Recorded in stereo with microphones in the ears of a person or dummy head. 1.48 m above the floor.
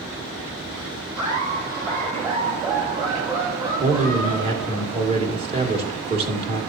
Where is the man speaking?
40° right (ahead or behind), 2 m.